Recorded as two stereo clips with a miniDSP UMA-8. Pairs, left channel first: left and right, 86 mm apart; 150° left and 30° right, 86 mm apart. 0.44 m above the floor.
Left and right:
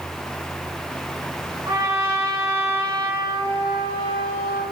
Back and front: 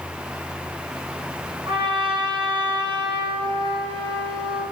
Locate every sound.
1.6 s a trumpet: 35° right, 6 m